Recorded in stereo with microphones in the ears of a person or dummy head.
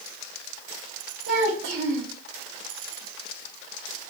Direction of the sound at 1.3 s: 70° right (ahead or behind).